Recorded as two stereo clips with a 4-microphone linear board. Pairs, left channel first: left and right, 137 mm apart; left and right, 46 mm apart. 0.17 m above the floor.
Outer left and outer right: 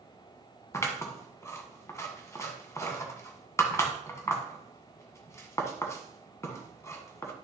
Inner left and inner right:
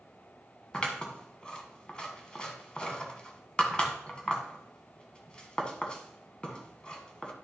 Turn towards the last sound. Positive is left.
turn(degrees=20)  # may be behind; listen again after turning